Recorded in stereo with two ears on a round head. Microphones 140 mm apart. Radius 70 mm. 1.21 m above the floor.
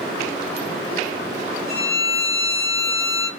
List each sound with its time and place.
1.7 s a violin: 30° right (ahead or behind), 4 m